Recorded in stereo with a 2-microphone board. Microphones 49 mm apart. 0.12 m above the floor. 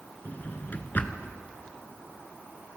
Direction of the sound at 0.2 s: 40° left (ahead or behind).